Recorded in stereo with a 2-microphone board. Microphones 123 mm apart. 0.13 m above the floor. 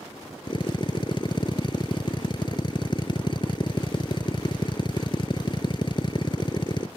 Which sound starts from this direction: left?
A drill, at 0.5 s.